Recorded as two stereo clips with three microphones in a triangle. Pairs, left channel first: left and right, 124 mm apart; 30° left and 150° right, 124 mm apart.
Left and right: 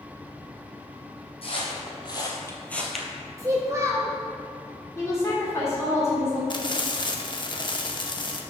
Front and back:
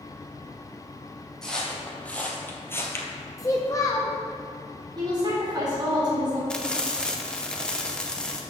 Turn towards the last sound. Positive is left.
turn(degrees=110)